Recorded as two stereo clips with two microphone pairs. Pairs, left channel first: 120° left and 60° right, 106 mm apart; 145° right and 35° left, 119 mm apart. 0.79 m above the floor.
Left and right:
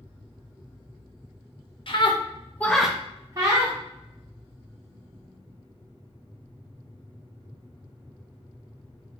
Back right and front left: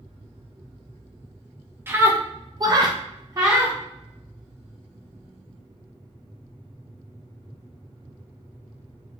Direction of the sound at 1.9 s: 105° left.